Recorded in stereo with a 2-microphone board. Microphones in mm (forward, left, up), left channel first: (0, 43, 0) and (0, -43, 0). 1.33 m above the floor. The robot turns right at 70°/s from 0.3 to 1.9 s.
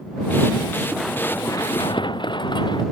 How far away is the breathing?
No breathing in this recording.